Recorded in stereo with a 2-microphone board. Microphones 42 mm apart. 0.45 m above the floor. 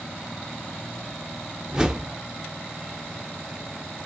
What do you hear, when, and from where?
1.7 s a whoosh: 15° right (ahead or behind), 0.7 m